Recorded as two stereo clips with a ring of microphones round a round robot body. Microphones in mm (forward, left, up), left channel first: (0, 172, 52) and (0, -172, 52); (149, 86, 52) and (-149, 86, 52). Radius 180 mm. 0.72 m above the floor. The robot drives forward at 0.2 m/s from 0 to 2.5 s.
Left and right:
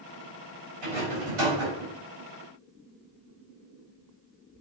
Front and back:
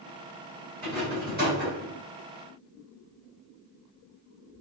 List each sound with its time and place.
0.8 s a rattle: 115° right, 3.5 m